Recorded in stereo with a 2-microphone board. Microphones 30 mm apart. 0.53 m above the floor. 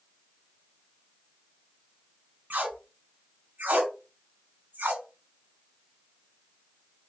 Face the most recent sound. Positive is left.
turn(degrees=-70)  # may be behind; listen again after turning